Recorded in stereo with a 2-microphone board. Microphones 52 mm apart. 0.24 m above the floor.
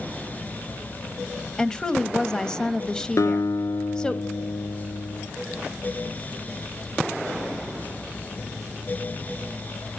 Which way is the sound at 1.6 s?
15° left (ahead or behind).